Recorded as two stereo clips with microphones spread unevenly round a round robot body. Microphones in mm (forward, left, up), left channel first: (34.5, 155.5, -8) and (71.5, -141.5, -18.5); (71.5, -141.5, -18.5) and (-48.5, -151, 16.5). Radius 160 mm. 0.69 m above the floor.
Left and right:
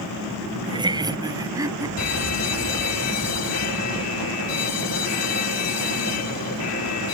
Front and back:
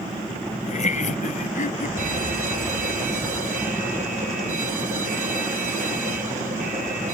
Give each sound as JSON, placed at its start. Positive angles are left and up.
{"t": 0.6, "sound": "laughter", "azimuth_deg": -10}
{"t": 2.0, "sound": "an alarm", "azimuth_deg": 140}